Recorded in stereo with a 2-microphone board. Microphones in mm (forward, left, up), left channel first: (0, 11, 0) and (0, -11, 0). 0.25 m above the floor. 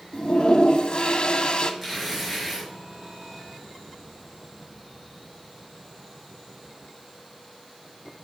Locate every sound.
0.1 s a toilet flushing: 50° left (ahead or behind), 0.6 m
1.8 s tearing paper: 10° right (ahead or behind), 3 m